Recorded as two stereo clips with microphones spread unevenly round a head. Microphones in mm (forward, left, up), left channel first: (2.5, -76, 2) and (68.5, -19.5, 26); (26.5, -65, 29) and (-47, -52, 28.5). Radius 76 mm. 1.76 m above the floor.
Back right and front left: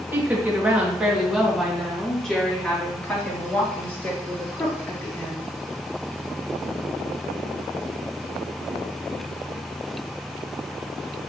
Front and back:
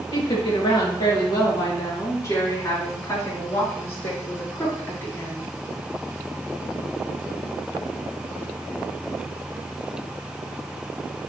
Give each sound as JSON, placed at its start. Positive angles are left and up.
{"t": 0.1, "sound": "a woman speaking", "azimuth_deg": -25, "distance_m": 2.0}